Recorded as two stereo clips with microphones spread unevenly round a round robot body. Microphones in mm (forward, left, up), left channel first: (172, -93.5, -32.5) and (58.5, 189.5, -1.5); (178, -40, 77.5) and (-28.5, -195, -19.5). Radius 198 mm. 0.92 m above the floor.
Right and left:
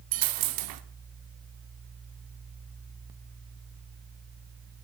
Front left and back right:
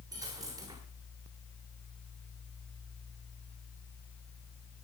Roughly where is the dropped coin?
Behind left.